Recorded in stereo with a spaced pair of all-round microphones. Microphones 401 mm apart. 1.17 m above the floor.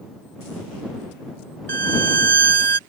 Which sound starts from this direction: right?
A violin, at 1.7 s.